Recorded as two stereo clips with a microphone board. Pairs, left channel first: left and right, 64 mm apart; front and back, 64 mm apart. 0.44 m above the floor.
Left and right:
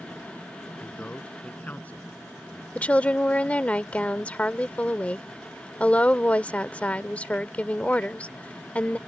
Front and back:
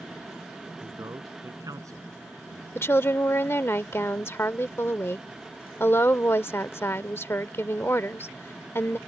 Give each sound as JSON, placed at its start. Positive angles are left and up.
{"t": 0.8, "sound": "a man speaking", "azimuth_deg": 155}
{"t": 2.8, "sound": "a woman speaking", "azimuth_deg": 30}